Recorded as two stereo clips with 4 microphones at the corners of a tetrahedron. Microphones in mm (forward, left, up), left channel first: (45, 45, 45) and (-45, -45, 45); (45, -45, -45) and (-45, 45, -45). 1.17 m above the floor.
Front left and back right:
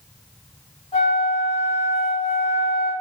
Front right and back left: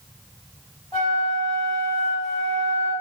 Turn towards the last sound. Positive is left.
turn(degrees=20)